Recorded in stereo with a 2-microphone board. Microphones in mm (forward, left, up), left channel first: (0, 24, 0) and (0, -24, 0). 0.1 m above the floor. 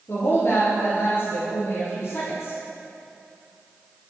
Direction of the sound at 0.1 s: 50° left (ahead or behind).